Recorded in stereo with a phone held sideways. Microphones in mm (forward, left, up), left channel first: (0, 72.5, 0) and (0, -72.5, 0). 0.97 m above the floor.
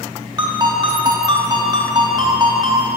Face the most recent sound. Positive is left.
turn(degrees=-30)  # may be behind; listen again after turning